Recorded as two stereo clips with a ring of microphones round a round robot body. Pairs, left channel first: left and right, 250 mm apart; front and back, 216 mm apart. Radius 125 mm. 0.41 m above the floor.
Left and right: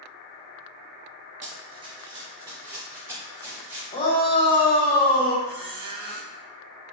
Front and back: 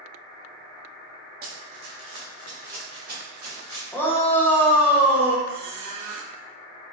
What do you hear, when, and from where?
1.4 s running footsteps: 140° right, 0.5 m; by 3.8 s 170° right, 3 m
3.9 s a shout: 65° left, 0.7 m
5.5 s a squeak: 145° right, 0.6 m